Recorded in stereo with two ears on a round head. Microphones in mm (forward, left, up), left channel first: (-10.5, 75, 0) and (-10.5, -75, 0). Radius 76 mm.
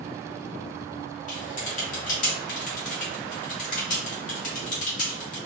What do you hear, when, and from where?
1.3 s typing on a keyboard: 50° left (ahead or behind), 1.5 m